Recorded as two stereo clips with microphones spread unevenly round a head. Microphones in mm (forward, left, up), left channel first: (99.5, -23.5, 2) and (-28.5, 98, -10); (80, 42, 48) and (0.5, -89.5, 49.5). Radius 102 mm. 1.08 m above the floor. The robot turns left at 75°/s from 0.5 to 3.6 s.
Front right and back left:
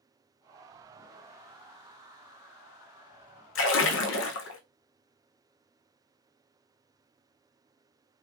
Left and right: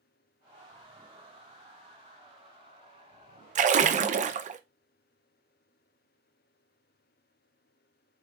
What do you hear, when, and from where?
3.5 s a splash: 75° right, 0.5 m; by 4.6 s 80° right, 0.5 m